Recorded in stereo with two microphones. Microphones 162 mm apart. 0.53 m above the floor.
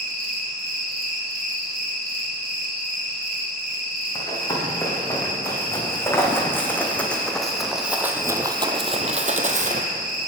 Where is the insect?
65° right (ahead or behind), 2 m.